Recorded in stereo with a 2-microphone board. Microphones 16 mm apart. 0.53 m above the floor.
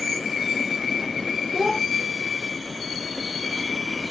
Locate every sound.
1.5 s a child speaking: 30° right (ahead or behind), 1.2 m